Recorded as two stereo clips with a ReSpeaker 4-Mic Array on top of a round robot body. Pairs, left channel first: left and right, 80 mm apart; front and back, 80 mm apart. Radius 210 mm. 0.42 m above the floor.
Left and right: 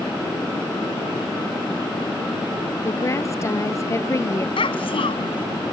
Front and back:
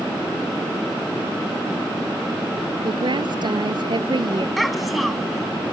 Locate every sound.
2.8 s a woman speaking: 145° left
4.6 s a child speaking: 90° left